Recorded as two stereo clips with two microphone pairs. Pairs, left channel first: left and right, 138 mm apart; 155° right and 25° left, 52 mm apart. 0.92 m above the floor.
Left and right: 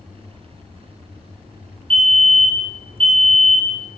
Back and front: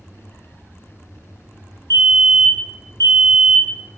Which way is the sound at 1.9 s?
135° right.